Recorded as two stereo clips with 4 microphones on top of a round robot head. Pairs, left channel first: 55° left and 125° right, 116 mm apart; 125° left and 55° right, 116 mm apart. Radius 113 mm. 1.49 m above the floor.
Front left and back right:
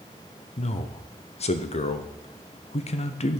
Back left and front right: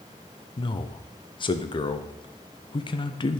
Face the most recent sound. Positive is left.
turn(degrees=80)